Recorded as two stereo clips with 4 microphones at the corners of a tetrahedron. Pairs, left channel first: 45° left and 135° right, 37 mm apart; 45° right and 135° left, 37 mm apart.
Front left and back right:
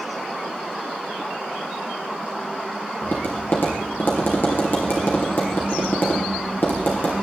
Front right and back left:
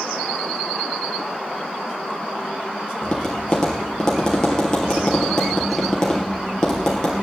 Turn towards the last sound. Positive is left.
turn(degrees=30)